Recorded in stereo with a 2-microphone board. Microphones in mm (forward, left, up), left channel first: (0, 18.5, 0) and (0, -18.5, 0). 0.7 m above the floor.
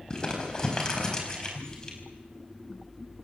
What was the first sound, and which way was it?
Crumpling, 20° left (ahead or behind).